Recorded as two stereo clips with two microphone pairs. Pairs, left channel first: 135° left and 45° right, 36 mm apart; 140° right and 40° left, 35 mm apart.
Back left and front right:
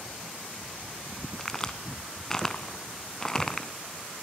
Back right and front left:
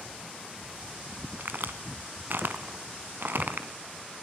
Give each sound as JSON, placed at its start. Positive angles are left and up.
{"t": 1.4, "sound": "a crack", "azimuth_deg": 65, "distance_m": 0.9}